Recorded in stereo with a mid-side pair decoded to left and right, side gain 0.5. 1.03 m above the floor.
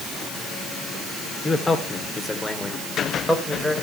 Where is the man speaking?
20° left, 3 m; by 3.7 s 5° left, 4 m.